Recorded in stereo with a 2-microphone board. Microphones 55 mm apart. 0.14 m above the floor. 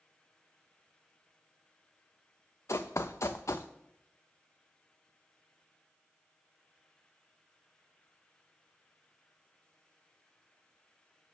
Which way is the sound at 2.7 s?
60° left (ahead or behind).